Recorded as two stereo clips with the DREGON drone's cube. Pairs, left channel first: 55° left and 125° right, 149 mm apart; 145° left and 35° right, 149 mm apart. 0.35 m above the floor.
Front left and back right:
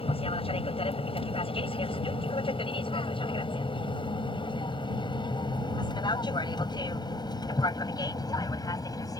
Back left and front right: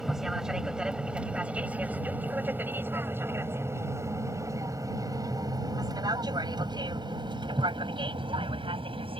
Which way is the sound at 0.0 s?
50° left.